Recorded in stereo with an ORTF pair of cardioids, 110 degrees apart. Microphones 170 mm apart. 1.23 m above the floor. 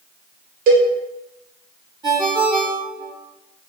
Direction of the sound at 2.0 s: 25° right.